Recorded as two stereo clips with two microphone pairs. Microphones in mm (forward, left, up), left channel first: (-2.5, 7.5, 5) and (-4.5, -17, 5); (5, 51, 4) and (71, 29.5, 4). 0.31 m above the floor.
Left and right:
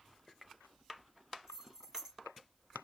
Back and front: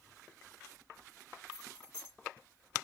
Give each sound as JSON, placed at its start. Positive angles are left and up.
{"t": 1.5, "sound": "keys jangling", "azimuth_deg": -155, "distance_m": 3.0}